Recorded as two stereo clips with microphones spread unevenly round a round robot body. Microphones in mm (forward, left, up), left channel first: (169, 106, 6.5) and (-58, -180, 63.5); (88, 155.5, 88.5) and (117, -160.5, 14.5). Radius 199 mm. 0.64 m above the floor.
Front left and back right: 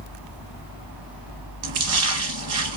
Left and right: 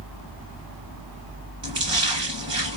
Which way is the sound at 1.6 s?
170° right.